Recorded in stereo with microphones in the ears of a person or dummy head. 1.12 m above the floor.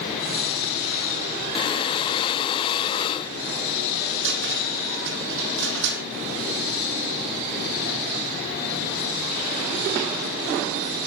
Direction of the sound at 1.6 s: 25° left (ahead or behind).